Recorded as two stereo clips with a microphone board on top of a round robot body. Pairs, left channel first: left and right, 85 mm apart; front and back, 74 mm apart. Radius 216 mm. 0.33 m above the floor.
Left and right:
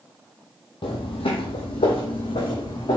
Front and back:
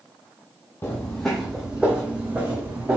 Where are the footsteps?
65° left, 0.6 m; by 3.0 s 115° left, 1.6 m.